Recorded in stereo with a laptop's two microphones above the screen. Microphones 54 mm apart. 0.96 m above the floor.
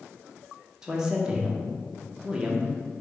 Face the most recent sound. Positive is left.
turn(degrees=-15)  # may be behind; listen again after turning